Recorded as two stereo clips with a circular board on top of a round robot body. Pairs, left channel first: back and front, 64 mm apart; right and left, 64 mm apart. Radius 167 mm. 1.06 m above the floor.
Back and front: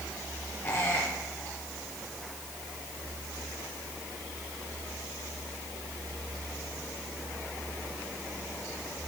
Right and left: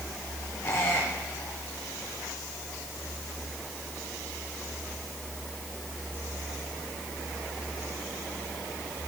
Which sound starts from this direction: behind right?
A squeak, at 0.6 s.